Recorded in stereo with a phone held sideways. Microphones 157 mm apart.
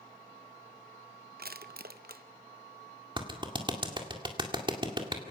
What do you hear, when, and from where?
1.4 s crushing: 65° right (ahead or behind), 0.6 m
3.2 s a clap: 30° right (ahead or behind), 1.9 m